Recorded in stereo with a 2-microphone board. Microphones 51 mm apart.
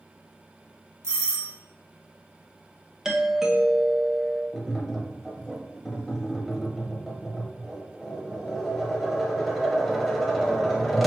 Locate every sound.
1.0 s a doorbell: 60° right (ahead or behind), 1.1 m
3.0 s a doorbell: 10° right (ahead or behind), 0.6 m
4.5 s tapping: centre (ahead or behind), 0.9 m